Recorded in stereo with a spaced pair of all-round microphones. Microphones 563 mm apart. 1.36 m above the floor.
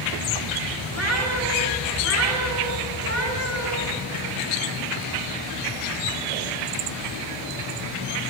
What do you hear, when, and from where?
0.9 s a cat meowing: 50° right (ahead or behind), 9 m